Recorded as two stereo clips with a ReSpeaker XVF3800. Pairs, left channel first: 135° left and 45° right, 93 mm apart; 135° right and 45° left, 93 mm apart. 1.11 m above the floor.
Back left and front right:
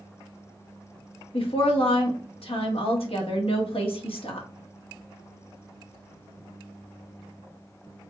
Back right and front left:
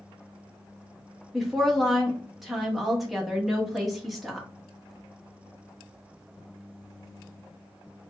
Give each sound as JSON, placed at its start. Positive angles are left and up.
{"t": 1.3, "sound": "a woman speaking", "azimuth_deg": 135, "distance_m": 1.2}